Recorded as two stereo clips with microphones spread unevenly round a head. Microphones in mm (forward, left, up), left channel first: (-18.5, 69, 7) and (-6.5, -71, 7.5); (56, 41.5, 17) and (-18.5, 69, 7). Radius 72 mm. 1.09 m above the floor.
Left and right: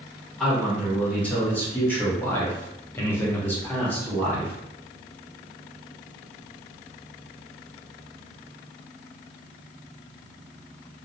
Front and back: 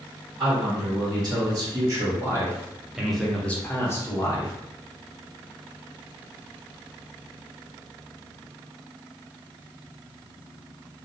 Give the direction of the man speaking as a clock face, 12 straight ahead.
6 o'clock.